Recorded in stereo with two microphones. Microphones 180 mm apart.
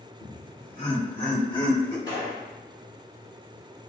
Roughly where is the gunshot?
Left.